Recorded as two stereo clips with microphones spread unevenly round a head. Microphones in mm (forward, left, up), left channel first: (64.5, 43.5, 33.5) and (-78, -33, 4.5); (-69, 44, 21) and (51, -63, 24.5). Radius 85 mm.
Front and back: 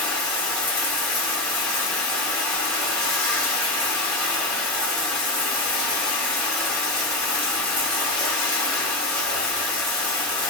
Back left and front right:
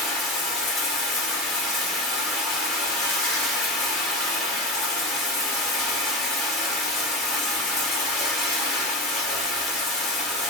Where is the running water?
45° left, 1.0 m.